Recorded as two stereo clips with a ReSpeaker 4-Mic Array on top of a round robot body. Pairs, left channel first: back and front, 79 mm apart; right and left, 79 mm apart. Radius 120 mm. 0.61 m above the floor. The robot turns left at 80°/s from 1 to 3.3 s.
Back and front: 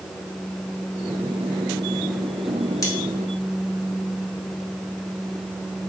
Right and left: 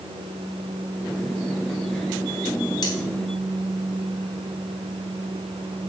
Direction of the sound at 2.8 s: 130° right.